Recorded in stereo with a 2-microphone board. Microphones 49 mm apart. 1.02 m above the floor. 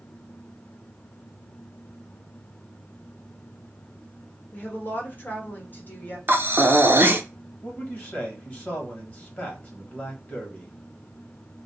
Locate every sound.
4.5 s a woman speaking: 40° left (ahead or behind), 1.1 m
6.3 s breathing: 40° right (ahead or behind), 0.6 m
7.6 s a man speaking: 35° left (ahead or behind), 1.2 m